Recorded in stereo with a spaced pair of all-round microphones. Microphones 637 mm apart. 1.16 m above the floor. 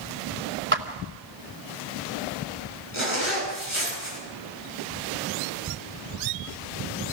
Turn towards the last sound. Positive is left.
turn(degrees=45)  # may be behind; listen again after turning